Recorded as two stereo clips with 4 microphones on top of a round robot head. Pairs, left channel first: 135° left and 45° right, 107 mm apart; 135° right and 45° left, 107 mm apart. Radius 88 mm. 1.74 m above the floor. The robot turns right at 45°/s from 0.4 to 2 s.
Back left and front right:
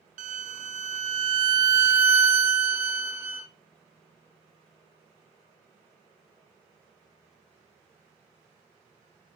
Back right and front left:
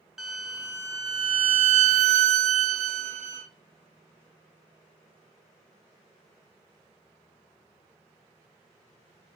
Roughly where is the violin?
Ahead right.